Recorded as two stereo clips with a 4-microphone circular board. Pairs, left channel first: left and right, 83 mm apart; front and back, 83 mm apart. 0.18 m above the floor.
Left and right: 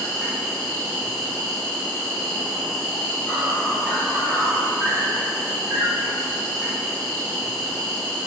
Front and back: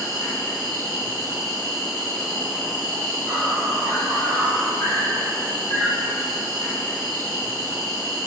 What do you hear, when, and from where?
0.0 s an insect: 135° left, 1.5 m